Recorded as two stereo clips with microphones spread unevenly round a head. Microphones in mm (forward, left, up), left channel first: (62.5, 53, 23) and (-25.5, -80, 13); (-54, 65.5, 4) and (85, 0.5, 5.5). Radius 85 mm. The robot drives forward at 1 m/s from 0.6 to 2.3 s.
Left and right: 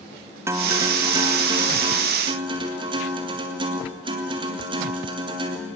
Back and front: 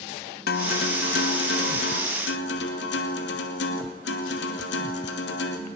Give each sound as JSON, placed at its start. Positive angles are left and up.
{"t": 0.5, "sound": "a guitar", "azimuth_deg": 165, "distance_m": 1.2}